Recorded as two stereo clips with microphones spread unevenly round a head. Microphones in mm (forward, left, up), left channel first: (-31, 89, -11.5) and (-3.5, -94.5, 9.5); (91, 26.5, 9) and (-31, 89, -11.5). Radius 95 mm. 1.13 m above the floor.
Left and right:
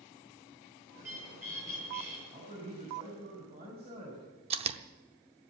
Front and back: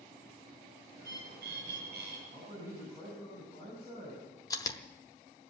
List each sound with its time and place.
0.9 s a bird: 160° right, 8.5 m
2.3 s a man speaking: 140° right, 6.5 m
4.5 s chewing: 65° right, 0.8 m